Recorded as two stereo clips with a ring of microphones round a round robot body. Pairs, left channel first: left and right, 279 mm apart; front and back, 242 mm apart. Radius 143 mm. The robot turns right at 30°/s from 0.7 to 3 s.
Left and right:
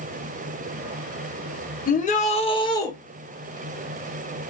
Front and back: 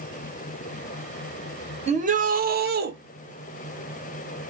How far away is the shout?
About 0.9 m.